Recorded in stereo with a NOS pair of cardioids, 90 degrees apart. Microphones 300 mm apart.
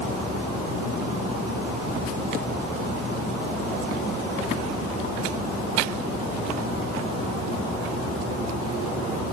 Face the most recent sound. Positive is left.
No sound to turn to.